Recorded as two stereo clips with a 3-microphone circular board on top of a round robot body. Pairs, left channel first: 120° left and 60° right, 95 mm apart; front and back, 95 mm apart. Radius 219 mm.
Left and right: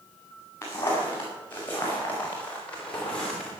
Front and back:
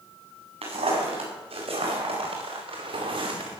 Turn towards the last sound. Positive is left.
turn(degrees=-155)